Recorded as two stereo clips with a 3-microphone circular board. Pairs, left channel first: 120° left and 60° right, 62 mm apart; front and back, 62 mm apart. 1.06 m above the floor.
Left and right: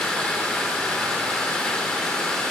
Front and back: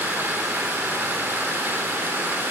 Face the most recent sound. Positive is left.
turn(degrees=-170)